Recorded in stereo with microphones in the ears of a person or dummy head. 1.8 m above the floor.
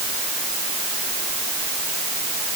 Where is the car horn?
I don't hear a car horn.